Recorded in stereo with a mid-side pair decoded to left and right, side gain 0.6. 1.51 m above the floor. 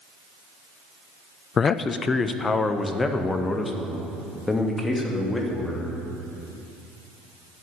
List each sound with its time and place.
1.6 s a man speaking: 35° left, 0.6 m; by 6.0 s 15° left, 3.5 m